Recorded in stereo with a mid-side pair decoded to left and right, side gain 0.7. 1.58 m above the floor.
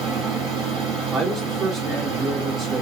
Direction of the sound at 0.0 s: 60° right.